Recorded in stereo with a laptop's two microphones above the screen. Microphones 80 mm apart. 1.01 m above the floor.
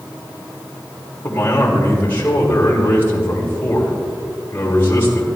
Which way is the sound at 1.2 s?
30° left (ahead or behind).